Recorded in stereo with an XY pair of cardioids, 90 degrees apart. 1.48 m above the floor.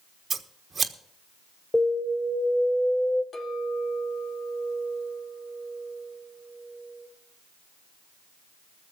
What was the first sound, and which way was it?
Scissors, 45° right.